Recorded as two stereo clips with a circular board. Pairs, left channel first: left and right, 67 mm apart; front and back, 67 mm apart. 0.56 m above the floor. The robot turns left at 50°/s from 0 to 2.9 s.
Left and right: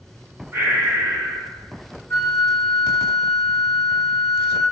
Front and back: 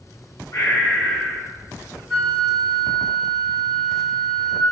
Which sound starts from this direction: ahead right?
Breathing, at 0.5 s.